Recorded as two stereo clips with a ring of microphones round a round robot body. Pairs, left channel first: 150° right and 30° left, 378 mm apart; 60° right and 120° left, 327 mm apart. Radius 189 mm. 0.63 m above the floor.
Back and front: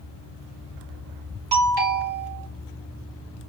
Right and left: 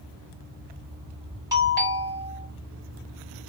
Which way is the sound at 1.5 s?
45° left.